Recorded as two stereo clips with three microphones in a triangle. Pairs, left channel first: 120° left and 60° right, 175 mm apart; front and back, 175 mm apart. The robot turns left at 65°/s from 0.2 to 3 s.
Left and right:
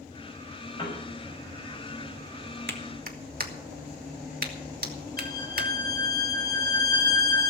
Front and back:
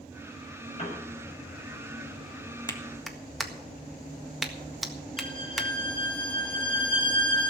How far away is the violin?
About 1.4 m.